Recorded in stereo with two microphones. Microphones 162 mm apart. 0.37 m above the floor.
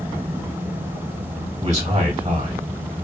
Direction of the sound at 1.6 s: 45° right (ahead or behind).